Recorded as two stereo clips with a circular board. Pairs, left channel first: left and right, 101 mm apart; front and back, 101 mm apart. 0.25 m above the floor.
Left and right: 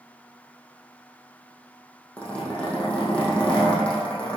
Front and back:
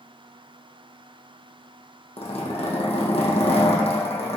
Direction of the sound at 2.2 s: 10° left.